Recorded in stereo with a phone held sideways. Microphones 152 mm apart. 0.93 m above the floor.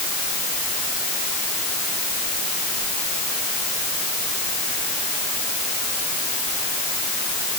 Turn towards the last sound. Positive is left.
No sound to turn to.